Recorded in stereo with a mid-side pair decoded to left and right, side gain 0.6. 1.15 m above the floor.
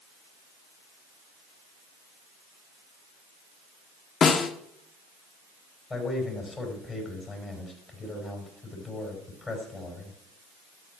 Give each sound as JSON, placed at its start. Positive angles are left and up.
{"t": 4.2, "sound": "a snare drum", "azimuth_deg": 40, "distance_m": 1.5}
{"t": 5.9, "sound": "a man speaking", "azimuth_deg": 25, "distance_m": 6.0}